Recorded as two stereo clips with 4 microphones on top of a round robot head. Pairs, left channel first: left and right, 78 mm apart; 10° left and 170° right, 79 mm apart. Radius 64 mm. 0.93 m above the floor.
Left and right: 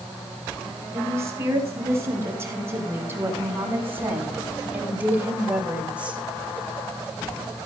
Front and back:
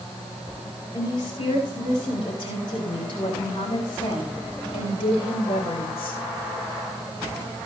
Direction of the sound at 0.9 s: 35° right.